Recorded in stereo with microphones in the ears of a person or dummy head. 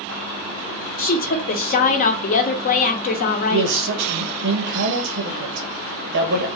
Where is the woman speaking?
45° left (ahead or behind), 0.8 m.